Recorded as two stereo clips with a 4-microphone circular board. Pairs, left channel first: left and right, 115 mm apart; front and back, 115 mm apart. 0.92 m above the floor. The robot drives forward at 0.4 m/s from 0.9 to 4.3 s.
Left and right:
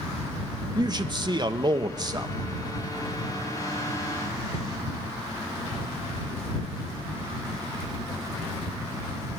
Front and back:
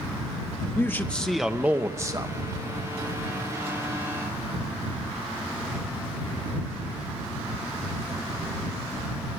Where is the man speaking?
65° right, 0.6 m; by 2.4 s 140° right, 0.7 m.